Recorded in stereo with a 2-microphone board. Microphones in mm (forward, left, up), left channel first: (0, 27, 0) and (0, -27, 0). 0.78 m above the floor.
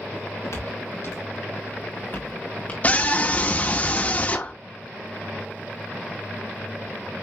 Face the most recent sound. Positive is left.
turn(degrees=30)  # may be behind; listen again after turning